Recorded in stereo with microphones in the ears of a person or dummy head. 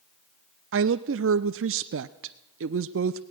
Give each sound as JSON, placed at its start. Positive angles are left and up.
{"t": 0.7, "sound": "a woman speaking", "side_deg": -65, "distance_m": 0.6}